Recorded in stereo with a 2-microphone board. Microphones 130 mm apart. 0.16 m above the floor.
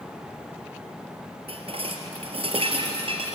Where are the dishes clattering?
50° right (ahead or behind), 2 m.